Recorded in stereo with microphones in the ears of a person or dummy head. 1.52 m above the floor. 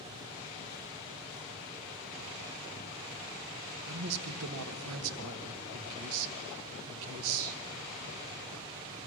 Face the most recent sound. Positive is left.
turn(degrees=-80)